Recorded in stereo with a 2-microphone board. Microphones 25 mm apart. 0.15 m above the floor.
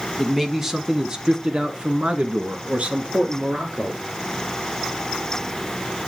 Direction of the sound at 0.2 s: 5° right (ahead or behind).